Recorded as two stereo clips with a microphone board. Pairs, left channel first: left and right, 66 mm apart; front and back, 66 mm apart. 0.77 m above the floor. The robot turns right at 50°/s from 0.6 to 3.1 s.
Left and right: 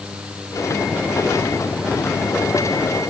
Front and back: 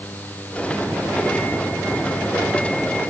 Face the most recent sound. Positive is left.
No sound to turn to.